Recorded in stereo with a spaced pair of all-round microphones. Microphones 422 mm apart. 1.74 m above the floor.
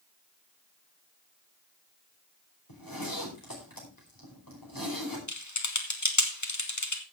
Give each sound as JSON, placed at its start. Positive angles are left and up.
{"t": 2.7, "sound": "a zipper", "side_deg": 50, "distance_m": 4.5}
{"t": 5.3, "sound": "typing on a keyboard", "side_deg": 40, "distance_m": 1.5}